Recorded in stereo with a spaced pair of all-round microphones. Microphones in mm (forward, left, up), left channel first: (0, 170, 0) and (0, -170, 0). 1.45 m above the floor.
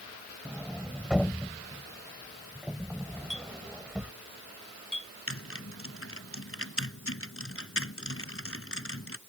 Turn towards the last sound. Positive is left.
turn(degrees=40)  # may be behind; listen again after turning